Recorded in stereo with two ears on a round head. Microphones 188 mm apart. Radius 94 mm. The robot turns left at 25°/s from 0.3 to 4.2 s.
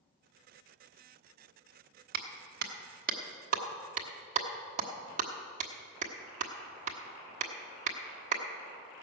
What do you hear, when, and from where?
2.1 s a clap: 45° right (ahead or behind), 1.3 m; by 8.4 s 35° right (ahead or behind), 1.3 m